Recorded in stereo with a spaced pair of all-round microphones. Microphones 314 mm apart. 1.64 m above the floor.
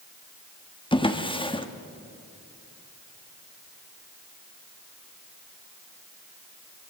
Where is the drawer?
15° left (ahead or behind), 1.2 m.